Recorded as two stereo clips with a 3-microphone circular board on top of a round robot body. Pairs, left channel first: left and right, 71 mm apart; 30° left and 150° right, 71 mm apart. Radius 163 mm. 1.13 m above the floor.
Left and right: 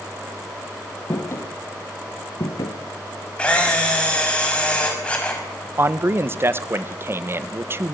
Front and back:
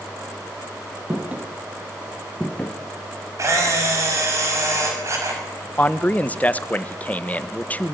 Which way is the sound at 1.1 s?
140° left.